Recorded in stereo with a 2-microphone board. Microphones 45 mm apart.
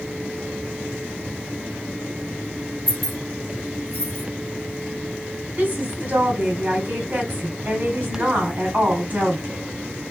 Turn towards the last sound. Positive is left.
turn(degrees=-35)  # may be behind; listen again after turning